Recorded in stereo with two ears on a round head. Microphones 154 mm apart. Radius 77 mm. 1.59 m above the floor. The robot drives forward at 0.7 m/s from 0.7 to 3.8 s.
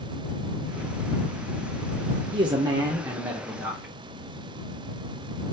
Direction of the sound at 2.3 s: 30° right (ahead or behind).